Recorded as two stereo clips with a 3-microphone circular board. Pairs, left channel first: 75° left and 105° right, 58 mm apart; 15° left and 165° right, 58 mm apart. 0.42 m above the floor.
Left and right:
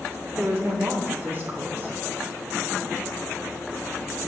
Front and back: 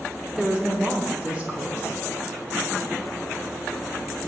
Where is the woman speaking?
110° right, 0.9 m.